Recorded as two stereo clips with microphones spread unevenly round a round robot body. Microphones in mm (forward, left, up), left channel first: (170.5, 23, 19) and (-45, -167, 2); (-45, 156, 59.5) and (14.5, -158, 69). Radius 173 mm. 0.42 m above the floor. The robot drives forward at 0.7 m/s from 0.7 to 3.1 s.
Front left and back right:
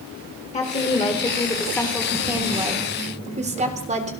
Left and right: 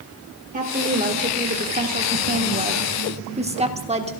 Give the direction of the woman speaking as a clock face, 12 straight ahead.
1 o'clock.